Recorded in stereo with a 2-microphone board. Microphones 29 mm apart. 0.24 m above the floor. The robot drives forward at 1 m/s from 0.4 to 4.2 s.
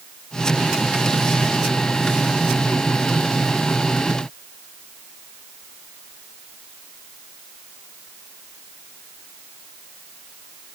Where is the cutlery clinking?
I don't hear cutlery clinking.